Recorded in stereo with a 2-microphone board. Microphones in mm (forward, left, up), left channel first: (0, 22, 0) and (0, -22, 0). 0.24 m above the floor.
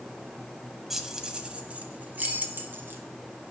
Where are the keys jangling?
5° right (ahead or behind), 0.9 m; by 3.0 s 55° right (ahead or behind), 1.5 m.